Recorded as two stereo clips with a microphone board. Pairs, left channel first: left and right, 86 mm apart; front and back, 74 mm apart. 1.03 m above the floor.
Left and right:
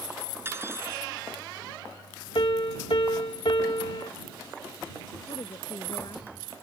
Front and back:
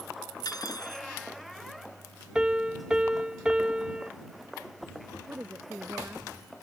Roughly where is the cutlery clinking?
Ahead right.